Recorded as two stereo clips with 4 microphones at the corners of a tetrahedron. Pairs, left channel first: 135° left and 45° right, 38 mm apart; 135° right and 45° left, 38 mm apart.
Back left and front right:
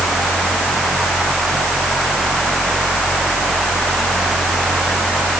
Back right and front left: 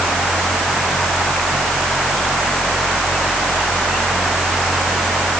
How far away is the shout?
I don't hear a shout.